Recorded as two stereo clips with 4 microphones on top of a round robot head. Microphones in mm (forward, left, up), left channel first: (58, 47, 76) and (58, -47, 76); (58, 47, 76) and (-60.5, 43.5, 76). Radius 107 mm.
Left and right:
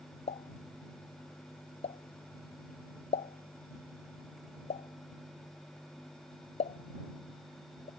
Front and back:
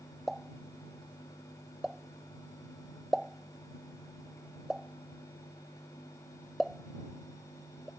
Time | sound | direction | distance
0.3 | a pop | 95° left | ?